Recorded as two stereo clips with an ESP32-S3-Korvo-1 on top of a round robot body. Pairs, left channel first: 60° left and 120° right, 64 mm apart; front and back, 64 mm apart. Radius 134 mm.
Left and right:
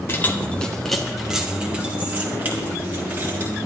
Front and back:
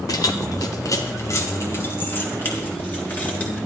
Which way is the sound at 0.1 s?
10° left.